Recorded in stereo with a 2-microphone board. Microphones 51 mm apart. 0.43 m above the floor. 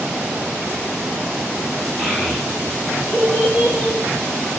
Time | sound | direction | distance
2.0 | a child speaking | 15° right (ahead or behind) | 1.4 m